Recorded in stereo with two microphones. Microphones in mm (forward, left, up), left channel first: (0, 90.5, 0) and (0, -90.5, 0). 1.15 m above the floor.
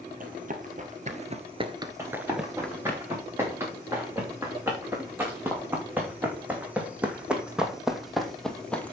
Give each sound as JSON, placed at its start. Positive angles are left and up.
{"t": 0.2, "sound": "running footsteps", "side_deg": -50, "distance_m": 2.0}
{"t": 2.0, "sound": "running footsteps", "side_deg": -15, "distance_m": 6.0}